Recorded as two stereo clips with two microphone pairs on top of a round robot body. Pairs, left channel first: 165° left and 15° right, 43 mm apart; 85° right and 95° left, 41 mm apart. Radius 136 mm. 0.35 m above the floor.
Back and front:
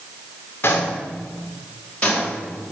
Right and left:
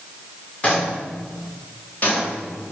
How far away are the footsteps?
About 3 m.